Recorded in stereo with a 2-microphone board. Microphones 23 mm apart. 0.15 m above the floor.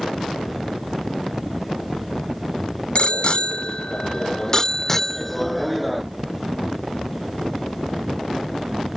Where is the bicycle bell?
50° left (ahead or behind); by 6.0 s centre (ahead or behind).